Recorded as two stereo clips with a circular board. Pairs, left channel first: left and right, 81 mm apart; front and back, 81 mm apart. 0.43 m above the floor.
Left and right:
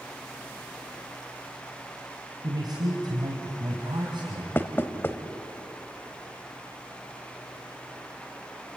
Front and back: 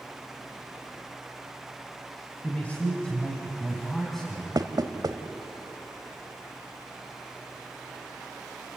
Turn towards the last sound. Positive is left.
turn(degrees=150)